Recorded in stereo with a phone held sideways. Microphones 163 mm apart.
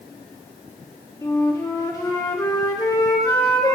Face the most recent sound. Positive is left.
turn(degrees=20)  # may be behind; listen again after turning